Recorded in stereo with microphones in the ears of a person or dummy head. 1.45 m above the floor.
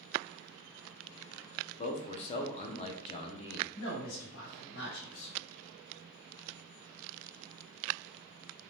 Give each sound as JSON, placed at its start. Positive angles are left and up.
{"t": 1.8, "sound": "a man speaking", "side_deg": 30, "distance_m": 0.5}
{"t": 3.8, "sound": "a man speaking", "side_deg": 55, "distance_m": 1.6}